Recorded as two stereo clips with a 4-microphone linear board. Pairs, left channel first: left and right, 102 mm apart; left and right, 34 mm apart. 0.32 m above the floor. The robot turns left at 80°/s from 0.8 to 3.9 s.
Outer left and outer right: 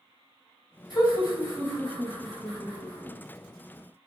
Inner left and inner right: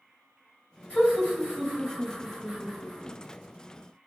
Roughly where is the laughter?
Left.